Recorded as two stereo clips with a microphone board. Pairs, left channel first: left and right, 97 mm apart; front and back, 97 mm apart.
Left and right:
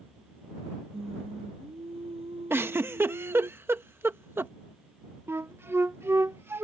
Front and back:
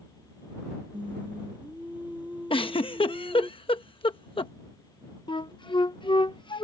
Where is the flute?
25° right.